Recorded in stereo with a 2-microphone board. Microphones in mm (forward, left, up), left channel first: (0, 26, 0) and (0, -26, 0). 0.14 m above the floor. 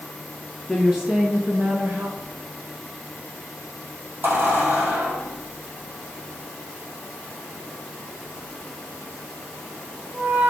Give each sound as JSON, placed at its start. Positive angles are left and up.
{"t": 0.7, "sound": "a woman speaking", "side_deg": 0, "distance_m": 1.4}
{"t": 2.2, "sound": "a squeak", "side_deg": -40, "distance_m": 4.0}